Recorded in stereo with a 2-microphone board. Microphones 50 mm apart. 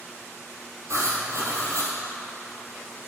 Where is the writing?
70° right (ahead or behind), 2.5 m.